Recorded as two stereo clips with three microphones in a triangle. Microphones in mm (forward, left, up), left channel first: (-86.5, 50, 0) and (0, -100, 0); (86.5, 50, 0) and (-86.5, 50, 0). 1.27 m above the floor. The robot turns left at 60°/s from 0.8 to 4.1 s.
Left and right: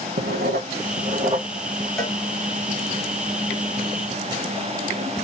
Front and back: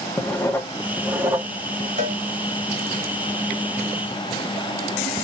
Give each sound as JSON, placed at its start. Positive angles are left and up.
{"t": 0.2, "sound": "writing", "azimuth_deg": -75, "distance_m": 1.2}
{"t": 2.0, "sound": "a cowbell", "azimuth_deg": -155, "distance_m": 1.8}